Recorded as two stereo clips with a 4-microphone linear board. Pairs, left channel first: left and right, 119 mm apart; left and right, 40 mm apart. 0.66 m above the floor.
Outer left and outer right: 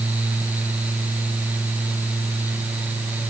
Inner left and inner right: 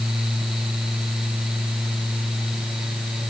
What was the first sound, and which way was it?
Only background noise.